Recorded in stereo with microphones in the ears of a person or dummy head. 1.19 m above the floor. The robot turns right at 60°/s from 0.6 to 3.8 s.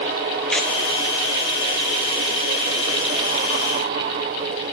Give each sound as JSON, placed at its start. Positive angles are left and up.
{"t": 0.5, "sound": "tearing paper", "side_deg": -5, "distance_m": 0.5}